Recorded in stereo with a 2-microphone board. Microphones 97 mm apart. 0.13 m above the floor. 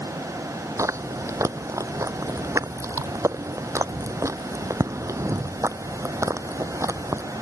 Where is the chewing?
30° right (ahead or behind).